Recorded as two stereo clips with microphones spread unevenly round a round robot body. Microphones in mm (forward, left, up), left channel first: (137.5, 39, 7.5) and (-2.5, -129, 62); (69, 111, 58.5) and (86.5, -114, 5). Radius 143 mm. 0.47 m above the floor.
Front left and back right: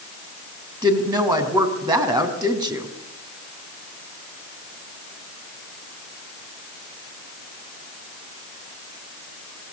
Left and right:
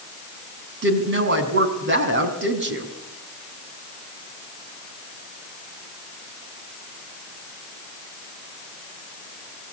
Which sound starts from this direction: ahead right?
A woman speaking, at 0.8 s.